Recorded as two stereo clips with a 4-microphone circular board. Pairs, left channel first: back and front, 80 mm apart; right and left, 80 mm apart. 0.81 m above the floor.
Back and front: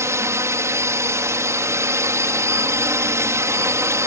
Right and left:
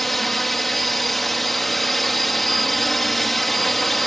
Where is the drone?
Straight ahead.